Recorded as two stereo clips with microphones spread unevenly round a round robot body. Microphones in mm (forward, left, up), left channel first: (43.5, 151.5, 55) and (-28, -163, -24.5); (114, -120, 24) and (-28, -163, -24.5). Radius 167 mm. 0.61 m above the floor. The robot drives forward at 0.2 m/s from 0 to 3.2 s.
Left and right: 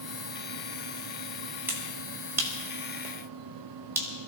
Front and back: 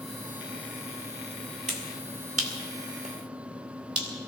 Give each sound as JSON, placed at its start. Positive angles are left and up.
{"t": 1.7, "sound": "a finger snap", "azimuth_deg": 180, "distance_m": 2.5}